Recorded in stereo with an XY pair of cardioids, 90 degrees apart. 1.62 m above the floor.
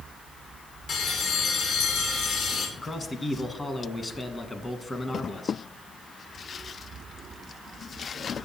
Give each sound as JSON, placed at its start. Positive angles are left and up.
{"t": 0.9, "sound": "a bell", "azimuth_deg": 70, "distance_m": 2.5}
{"t": 2.8, "sound": "a man speaking", "azimuth_deg": 30, "distance_m": 1.4}